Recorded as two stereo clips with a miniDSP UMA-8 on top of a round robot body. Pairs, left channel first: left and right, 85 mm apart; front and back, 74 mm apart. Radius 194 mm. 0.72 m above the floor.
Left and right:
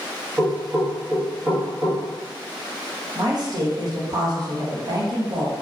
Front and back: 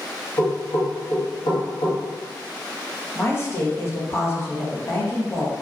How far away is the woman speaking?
About 0.8 m.